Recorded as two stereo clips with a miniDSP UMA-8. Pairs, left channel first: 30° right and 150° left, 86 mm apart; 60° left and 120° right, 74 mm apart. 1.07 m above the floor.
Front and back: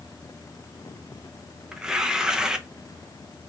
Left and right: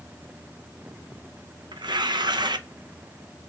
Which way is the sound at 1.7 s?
130° right.